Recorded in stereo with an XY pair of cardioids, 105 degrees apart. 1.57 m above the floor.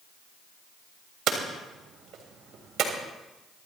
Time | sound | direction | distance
1.3 | hammering | 65° right | 3.5 m